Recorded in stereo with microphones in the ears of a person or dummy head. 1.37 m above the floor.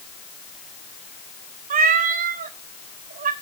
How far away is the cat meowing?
About 1.1 m.